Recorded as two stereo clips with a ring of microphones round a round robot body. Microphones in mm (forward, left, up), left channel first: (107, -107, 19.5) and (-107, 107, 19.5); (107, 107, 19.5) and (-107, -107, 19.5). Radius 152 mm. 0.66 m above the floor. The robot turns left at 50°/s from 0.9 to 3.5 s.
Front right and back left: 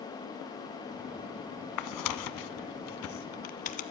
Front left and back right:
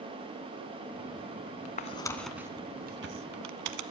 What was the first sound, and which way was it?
Tearing paper, 20° right.